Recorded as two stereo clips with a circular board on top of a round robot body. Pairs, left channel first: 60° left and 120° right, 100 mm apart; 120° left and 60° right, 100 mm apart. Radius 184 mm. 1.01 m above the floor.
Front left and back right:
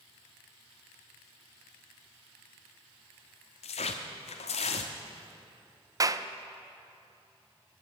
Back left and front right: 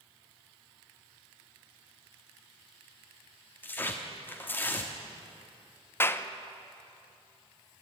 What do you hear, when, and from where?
3.6 s tearing paper: 45° left, 1.1 m
6.0 s a clap: 175° right, 0.9 m